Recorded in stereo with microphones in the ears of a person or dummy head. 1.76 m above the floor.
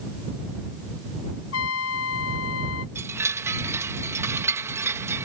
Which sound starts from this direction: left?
A trumpet, at 1.5 s.